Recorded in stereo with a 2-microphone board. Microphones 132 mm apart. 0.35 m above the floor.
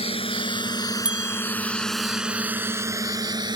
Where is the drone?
50° left (ahead or behind); by 3.6 s 35° right (ahead or behind).